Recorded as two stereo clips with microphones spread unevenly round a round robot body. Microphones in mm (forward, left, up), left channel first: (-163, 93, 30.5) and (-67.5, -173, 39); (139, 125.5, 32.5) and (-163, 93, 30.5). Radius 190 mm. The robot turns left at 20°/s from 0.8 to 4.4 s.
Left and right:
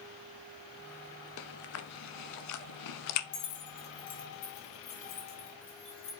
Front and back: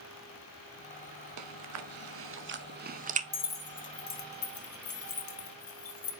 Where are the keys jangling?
65° left, 1.1 m; by 6.1 s 45° left, 1.1 m.